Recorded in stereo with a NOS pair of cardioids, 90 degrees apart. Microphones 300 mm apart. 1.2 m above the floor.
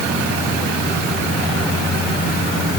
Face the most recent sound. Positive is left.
No sound to turn to.